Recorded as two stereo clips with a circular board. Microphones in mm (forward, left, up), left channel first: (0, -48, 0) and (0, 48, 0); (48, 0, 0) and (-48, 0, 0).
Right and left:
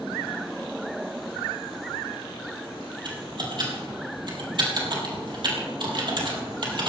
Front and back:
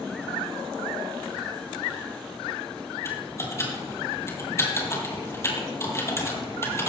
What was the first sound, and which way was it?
Typing on a keyboard, 60° left.